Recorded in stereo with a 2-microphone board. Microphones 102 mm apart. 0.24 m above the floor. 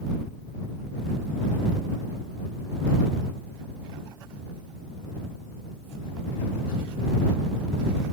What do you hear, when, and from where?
Only background noise.